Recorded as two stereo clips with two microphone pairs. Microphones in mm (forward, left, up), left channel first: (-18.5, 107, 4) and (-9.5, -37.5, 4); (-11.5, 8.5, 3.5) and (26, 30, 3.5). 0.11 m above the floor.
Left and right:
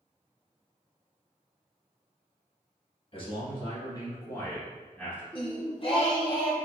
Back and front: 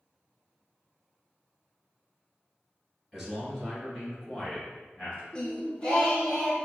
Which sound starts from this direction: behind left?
Singing, at 5.3 s.